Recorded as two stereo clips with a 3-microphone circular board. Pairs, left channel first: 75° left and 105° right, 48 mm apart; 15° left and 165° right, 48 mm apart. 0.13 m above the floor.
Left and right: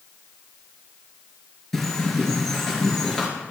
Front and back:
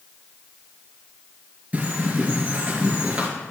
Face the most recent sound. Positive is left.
turn(degrees=155)